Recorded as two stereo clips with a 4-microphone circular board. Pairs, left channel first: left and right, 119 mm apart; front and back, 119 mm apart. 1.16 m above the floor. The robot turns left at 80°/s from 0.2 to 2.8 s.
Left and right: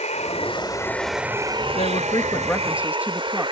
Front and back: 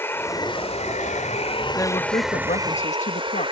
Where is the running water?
70° left; by 3.5 s 135° right.